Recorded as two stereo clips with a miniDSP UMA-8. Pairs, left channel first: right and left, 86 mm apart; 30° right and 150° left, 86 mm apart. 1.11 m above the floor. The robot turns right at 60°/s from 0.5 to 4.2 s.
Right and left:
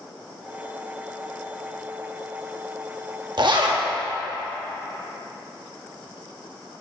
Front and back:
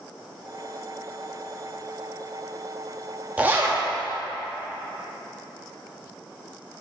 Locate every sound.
3.4 s a zipper: 80° left, 0.8 m; by 3.8 s 105° left, 0.8 m